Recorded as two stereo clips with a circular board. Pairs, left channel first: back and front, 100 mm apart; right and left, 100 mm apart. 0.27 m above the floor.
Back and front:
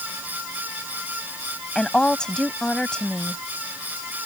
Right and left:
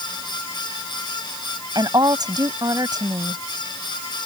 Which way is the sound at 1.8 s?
100° left.